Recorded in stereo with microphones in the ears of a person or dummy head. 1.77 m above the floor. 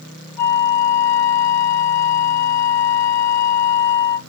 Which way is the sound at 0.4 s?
40° left (ahead or behind).